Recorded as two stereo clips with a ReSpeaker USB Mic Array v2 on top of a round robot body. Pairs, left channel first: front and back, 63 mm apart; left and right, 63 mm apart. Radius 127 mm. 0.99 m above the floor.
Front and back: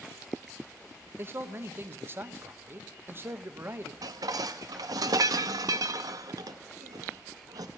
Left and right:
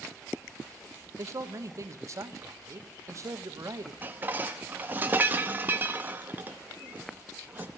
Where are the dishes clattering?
155° right, 0.7 m.